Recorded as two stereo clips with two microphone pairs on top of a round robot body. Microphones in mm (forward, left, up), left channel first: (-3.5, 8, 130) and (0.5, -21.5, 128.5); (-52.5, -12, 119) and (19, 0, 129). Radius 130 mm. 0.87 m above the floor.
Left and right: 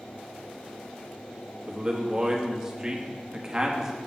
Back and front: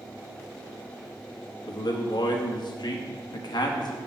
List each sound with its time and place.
1.7 s a man speaking: 155° right, 1.5 m